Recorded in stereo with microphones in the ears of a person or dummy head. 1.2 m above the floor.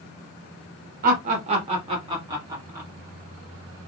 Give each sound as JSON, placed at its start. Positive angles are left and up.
{"t": 1.0, "sound": "laughter", "side_deg": -45, "distance_m": 1.5}